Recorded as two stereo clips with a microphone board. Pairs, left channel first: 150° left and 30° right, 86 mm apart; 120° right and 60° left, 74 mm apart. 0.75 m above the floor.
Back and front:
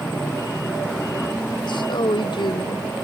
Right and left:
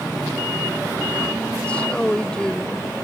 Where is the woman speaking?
165° left; by 2.9 s 160° left.